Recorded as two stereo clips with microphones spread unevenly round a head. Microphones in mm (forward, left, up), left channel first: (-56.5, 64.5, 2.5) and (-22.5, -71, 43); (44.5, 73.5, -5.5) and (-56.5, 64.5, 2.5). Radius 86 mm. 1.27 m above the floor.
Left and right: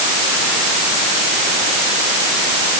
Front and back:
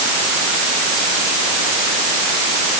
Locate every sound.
Only background noise.